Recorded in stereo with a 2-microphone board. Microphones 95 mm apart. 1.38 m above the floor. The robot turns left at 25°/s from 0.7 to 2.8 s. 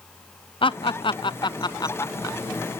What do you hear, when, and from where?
0.6 s laughter: 65° left (ahead or behind), 0.6 m; by 2.4 s 35° left (ahead or behind), 0.6 m